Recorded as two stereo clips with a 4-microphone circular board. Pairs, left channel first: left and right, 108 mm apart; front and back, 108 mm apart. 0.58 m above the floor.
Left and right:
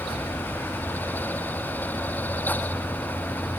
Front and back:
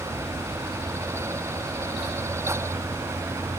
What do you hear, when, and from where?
Only background noise.